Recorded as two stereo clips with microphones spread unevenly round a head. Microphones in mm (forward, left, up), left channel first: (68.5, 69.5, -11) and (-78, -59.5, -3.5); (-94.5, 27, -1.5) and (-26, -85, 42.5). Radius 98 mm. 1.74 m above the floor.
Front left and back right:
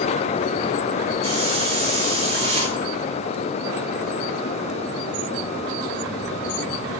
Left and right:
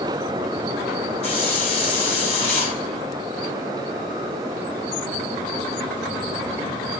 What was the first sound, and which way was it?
A hiss, 170° left.